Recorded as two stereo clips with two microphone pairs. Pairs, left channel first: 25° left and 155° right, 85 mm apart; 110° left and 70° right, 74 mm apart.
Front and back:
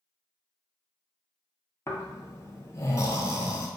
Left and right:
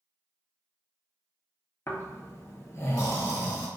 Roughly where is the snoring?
Left.